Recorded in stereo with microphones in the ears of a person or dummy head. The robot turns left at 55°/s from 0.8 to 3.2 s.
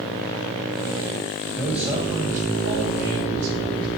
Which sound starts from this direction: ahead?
A man speaking, at 1.6 s.